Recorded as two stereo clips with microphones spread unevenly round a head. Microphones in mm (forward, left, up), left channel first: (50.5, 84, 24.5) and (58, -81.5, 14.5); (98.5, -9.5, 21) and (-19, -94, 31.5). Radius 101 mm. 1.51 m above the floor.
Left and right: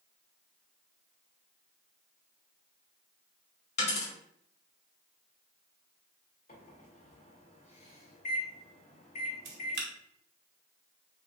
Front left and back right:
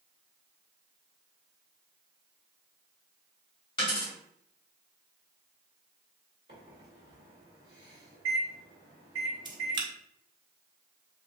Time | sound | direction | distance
3.8 | a dropped coin | 95° left | 1.4 m
6.5 | a microwave | 150° left | 2 m
9.4 | a camera shutter | 85° right | 1.0 m